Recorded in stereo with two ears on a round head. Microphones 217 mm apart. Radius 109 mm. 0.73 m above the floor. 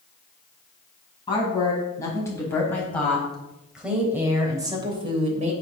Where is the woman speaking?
20° left (ahead or behind), 6 m; by 5.5 s 35° right (ahead or behind), 3 m.